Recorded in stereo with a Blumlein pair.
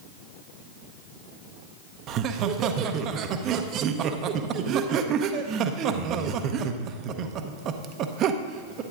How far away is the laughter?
About 0.8 m.